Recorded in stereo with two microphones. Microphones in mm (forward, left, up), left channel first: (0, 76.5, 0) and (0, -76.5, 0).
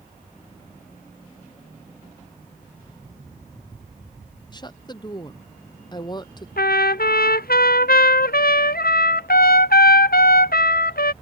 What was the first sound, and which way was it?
A woman speaking, 25° left (ahead or behind).